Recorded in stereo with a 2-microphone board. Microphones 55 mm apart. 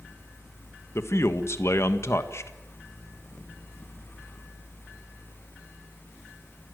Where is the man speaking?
55° left (ahead or behind), 1.5 m.